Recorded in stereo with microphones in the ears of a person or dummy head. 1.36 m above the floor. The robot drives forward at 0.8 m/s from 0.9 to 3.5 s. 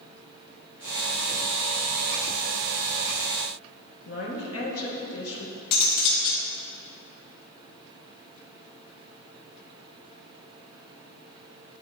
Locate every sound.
4.0 s a woman speaking: 70° left (ahead or behind), 1.7 m
5.7 s cutlery clinking: 60° left (ahead or behind), 1.7 m